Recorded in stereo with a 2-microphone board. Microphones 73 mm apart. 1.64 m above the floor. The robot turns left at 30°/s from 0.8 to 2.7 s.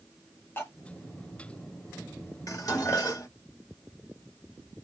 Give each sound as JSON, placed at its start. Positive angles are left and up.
{"t": 0.6, "sound": "cutlery clinking", "side_deg": 30, "distance_m": 1.1}
{"t": 2.5, "sound": "dishes clattering", "side_deg": 50, "distance_m": 1.8}